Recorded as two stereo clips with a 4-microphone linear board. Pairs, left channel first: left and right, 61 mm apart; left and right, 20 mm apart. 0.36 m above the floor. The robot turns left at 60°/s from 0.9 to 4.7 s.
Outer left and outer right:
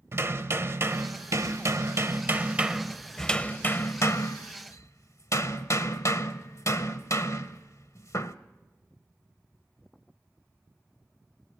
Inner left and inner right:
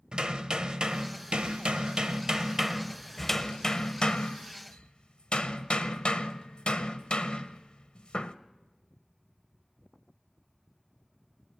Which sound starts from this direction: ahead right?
Hammering, at 0.1 s.